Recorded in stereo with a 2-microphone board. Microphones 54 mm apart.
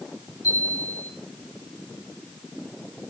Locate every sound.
0.4 s a chime: 75° left (ahead or behind), 7 m